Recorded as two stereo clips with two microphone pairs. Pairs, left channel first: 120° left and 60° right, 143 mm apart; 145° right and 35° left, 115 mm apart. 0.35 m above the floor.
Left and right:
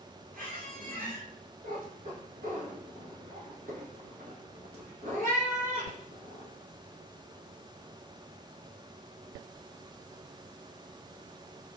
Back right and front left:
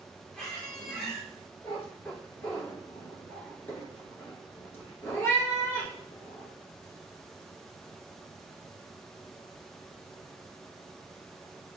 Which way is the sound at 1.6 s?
75° right.